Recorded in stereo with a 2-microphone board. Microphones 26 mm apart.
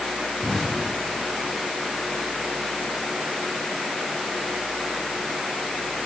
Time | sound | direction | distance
0.4 | an explosion | 10° left (ahead or behind) | 7 m